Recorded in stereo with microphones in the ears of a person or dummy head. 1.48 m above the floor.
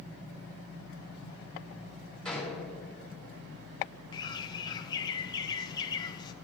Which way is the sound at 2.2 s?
5° left (ahead or behind).